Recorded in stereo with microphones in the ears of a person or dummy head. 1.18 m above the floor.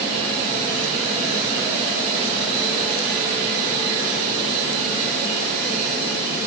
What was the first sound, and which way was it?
Only background noise.